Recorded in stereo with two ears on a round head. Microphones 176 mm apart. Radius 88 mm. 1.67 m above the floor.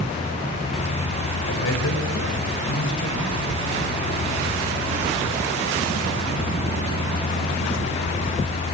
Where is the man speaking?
75° left (ahead or behind), 8 m.